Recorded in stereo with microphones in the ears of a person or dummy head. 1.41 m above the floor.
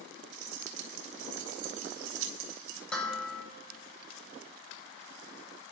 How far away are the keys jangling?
About 1.5 m.